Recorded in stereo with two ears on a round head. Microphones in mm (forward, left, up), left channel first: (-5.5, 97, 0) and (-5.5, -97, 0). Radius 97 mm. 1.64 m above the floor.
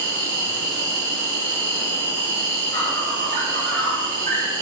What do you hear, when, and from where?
0.0 s an insect: 60° right (ahead or behind), 2.5 m